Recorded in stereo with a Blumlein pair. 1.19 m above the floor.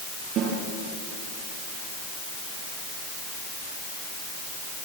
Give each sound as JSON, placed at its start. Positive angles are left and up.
{"t": 0.4, "sound": "a snare drum", "azimuth_deg": -35, "distance_m": 7.0}